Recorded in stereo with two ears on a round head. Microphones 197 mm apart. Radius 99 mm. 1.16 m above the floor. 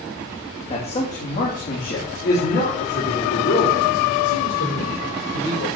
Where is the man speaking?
25° left (ahead or behind), 2.5 m; by 5.7 s 70° left (ahead or behind), 6 m.